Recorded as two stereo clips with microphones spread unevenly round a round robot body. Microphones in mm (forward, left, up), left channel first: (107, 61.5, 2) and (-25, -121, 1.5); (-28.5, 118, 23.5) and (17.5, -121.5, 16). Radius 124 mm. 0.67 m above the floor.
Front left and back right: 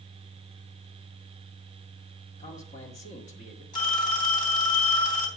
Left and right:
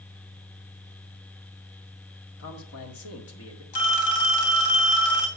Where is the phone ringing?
115° left, 3 m.